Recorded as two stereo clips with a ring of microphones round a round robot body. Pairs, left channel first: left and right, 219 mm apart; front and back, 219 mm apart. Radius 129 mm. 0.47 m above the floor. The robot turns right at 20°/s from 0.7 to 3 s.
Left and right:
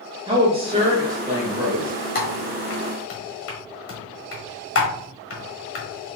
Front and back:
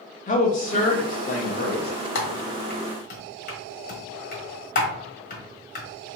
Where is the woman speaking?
35° right, 0.9 m; by 1.9 s 10° right, 0.9 m.